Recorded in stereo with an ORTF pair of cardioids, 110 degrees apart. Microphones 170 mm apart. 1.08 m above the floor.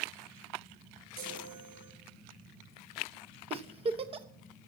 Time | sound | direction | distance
1.2 | a chime | 65° right | 4 m
3.5 | a giggle | 35° right | 0.9 m